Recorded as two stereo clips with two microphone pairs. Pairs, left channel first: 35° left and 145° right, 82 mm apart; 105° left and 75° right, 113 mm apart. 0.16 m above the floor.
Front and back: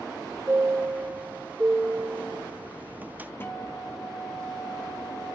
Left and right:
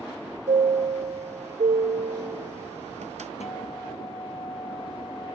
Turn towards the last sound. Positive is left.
turn(degrees=95)